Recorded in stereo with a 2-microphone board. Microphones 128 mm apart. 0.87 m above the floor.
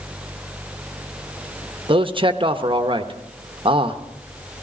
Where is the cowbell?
I don't hear a cowbell.